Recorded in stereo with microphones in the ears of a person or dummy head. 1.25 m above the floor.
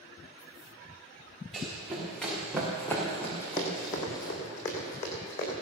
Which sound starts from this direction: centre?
Running footsteps, at 1.5 s.